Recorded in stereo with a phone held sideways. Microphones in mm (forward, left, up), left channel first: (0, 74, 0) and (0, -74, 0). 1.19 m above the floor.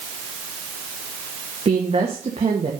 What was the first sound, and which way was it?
A woman speaking, 45° right (ahead or behind).